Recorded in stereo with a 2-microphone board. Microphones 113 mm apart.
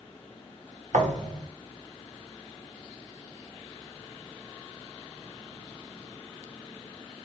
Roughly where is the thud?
Right.